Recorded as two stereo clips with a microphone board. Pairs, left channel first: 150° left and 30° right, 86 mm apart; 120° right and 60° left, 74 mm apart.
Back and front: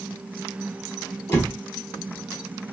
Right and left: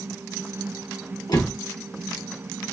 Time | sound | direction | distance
1.3 | a door slam | 150° right | 3 m